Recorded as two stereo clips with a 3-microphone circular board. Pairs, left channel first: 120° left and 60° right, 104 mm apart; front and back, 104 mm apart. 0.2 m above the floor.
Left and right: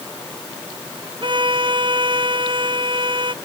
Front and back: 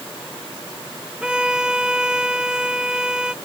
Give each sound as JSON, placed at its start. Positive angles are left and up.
{"t": 1.2, "sound": "a violin", "azimuth_deg": -100}